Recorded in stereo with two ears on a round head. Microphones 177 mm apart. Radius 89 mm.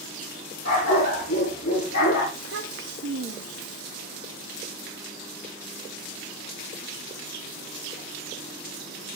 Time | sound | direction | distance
0.7 | a dog barking | 40° left (ahead or behind) | 7 m
2.3 | a child speaking | 60° right (ahead or behind) | 1.3 m